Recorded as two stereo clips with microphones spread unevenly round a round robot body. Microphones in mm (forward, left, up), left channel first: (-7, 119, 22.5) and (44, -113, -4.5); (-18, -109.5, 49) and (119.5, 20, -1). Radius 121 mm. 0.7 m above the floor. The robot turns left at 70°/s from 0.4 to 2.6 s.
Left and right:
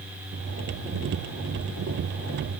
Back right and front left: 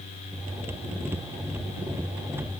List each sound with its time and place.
Only background noise.